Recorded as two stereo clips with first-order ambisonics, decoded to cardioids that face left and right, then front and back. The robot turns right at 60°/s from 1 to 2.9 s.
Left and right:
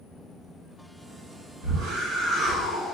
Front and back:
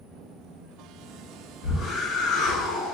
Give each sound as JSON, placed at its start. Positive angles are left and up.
{"t": 1.6, "sound": "a whoosh", "azimuth_deg": -60, "distance_m": 1.0}